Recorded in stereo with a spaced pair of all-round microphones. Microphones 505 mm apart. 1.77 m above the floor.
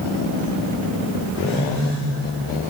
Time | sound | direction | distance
1.4 | a phone buzzing | 35° left (ahead or behind) | 8.5 m